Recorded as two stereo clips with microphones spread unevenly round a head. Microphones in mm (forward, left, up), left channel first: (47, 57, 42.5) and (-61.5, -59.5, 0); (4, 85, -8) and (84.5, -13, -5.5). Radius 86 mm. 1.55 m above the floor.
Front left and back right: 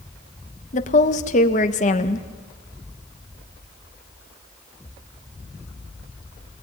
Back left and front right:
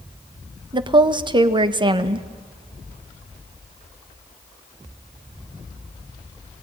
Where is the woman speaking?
Straight ahead, 1.5 m.